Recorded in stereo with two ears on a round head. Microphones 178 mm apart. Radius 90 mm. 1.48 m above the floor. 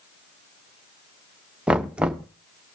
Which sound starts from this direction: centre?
Knocking, at 1.7 s.